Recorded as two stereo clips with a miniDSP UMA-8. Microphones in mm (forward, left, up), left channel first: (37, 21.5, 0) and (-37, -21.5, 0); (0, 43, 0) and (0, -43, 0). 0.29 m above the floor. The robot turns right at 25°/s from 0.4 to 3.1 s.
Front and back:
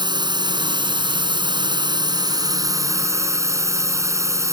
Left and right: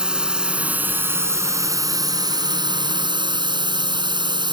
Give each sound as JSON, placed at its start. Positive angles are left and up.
{"t": 0.0, "sound": "a drone", "azimuth_deg": -170}